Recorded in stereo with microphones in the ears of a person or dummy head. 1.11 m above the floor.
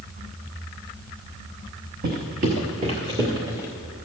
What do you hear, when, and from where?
2.0 s footsteps: 50° right (ahead or behind), 1.8 m; by 3.7 s 10° right (ahead or behind), 1.6 m